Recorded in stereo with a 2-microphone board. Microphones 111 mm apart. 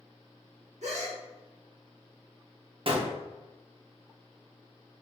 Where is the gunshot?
50° right (ahead or behind), 0.7 m.